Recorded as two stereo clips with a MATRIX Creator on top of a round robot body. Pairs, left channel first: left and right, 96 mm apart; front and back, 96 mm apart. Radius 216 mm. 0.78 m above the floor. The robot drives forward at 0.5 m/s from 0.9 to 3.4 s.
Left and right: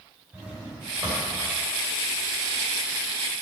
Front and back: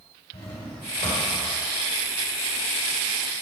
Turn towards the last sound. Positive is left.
turn(degrees=-25)